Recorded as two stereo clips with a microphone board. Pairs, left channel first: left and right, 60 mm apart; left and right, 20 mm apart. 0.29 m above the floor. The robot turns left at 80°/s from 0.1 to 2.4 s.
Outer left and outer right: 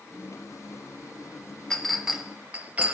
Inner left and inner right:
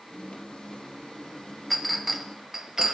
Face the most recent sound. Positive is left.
turn(degrees=-25)  # may be behind; listen again after turning